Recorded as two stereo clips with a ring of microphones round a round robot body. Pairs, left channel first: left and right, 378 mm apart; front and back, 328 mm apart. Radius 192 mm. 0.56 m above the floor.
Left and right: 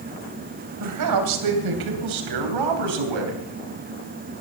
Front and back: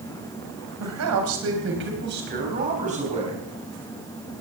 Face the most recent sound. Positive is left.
turn(degrees=-105)